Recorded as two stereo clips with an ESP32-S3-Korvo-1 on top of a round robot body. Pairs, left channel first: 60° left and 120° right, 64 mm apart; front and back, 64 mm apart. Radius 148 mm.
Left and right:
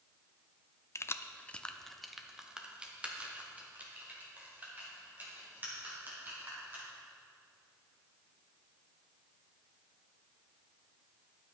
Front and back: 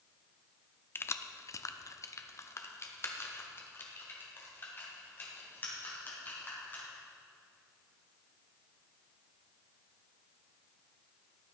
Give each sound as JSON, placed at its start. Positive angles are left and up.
{"t": 0.9, "sound": "keys jangling", "azimuth_deg": 40, "distance_m": 0.7}